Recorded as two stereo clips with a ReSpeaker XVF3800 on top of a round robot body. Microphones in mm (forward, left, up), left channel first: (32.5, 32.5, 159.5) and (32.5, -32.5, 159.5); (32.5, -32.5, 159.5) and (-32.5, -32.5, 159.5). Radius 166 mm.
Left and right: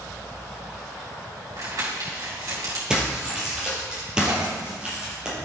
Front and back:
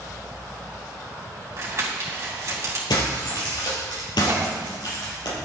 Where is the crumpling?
130° right, 4 m.